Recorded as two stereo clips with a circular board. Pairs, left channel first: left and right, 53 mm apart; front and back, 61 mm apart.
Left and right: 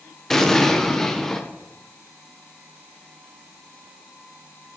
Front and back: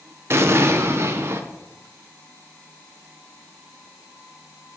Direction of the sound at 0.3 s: 170° left.